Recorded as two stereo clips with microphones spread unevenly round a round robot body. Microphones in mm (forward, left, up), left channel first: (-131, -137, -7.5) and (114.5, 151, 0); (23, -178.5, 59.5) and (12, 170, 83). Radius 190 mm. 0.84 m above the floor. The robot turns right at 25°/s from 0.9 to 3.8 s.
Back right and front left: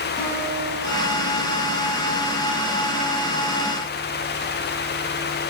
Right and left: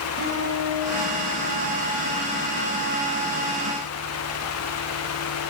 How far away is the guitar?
About 3.5 m.